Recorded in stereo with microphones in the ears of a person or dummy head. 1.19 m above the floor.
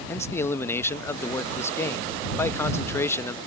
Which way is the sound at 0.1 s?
15° left (ahead or behind).